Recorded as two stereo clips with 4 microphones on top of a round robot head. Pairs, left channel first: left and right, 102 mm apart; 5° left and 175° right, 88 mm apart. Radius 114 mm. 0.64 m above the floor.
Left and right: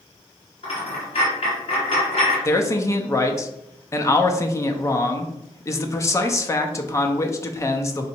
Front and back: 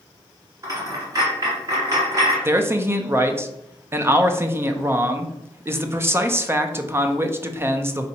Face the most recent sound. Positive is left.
turn(degrees=135)